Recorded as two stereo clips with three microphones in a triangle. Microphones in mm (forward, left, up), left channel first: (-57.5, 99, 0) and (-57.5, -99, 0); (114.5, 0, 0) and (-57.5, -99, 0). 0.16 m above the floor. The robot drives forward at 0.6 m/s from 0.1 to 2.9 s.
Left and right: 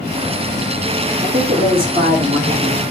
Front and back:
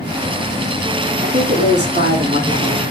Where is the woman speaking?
125° right, 4.5 m; by 2.8 s 130° right, 5.5 m.